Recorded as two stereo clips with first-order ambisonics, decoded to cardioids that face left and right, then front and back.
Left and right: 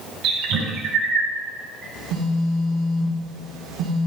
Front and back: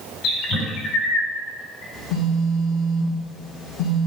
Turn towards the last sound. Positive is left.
turn(degrees=-45)